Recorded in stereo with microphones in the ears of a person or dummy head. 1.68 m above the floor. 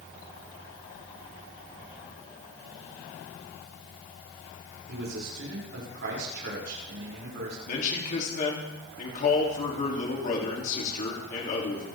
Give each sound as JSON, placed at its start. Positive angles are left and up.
{"t": 4.9, "sound": "a man speaking", "side_deg": -60, "distance_m": 7.0}
{"t": 7.7, "sound": "a man speaking", "side_deg": 45, "distance_m": 3.0}